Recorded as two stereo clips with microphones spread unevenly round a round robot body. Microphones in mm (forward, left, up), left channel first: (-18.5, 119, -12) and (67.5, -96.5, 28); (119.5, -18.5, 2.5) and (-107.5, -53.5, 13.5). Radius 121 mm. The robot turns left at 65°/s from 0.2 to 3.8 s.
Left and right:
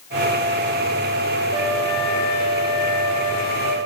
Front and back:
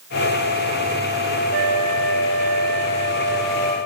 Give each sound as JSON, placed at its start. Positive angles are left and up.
{"t": 1.5, "sound": "a flute", "azimuth_deg": -135, "distance_m": 4.0}